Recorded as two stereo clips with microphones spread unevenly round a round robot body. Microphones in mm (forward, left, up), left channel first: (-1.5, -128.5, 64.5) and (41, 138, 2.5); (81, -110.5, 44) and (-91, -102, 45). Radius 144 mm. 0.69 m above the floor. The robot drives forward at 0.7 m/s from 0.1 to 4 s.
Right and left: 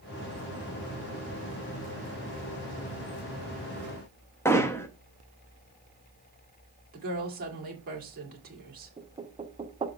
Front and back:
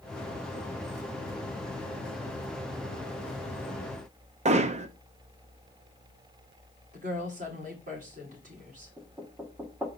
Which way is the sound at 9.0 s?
105° left.